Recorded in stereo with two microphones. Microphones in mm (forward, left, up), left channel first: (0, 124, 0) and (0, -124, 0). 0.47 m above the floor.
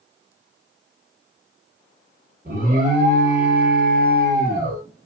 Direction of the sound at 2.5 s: 35° right (ahead or behind).